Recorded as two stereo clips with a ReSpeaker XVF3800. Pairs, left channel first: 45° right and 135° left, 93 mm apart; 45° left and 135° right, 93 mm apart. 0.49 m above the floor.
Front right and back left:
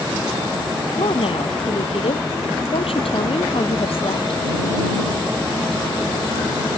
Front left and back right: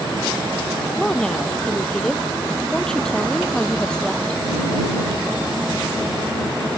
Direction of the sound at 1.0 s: 40° right.